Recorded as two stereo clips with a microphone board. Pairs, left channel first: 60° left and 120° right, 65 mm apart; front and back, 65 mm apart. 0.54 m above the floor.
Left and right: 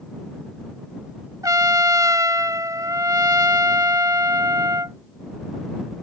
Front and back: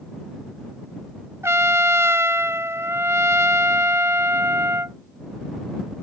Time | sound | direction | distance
1.4 | a trumpet | 135° right | ?